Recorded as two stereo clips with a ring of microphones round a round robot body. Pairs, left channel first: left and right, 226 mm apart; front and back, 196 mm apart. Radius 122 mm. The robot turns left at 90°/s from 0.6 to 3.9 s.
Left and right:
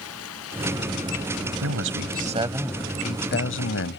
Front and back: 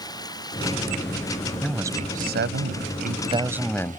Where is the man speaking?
85° right; by 4.0 s 70° left.